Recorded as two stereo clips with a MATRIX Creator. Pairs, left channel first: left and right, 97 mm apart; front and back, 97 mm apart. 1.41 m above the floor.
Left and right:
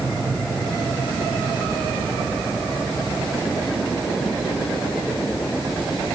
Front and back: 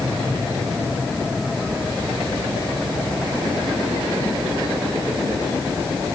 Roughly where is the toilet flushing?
No toilet flushing in this recording.